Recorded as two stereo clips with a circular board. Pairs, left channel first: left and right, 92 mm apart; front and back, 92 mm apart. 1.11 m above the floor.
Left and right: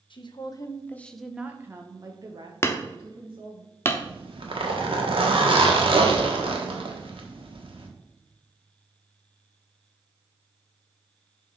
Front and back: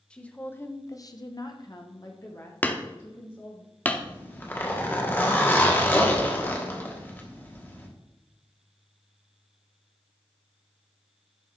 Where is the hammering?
55° left, 0.7 m.